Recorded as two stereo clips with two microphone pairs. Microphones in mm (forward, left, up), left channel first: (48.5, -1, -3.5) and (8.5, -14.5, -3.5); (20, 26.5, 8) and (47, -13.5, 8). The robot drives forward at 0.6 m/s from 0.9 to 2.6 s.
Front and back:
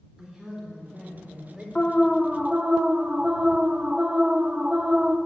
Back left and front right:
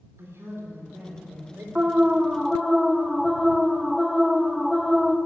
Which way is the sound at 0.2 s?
90° right.